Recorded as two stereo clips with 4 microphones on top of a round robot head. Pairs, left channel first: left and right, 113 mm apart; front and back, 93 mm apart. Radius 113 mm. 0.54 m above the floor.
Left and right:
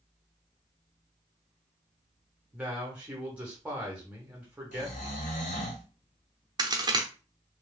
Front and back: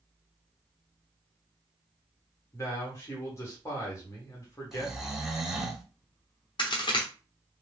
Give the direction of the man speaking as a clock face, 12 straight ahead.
1 o'clock.